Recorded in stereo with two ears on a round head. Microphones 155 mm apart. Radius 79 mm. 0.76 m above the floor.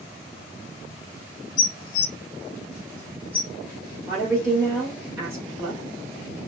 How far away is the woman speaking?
About 1.7 m.